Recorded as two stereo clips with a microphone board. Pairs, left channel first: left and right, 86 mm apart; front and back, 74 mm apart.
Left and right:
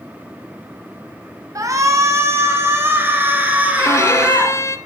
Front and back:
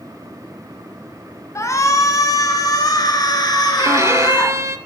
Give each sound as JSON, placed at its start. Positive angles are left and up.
{"t": 1.6, "sound": "a shout", "azimuth_deg": -45, "distance_m": 3.0}
{"t": 3.8, "sound": "a violin", "azimuth_deg": 140, "distance_m": 1.0}